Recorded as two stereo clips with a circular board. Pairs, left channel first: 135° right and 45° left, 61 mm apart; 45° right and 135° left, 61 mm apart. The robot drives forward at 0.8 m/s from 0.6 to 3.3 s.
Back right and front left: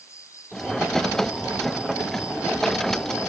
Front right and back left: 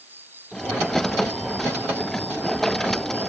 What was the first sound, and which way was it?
An insect, 170° right.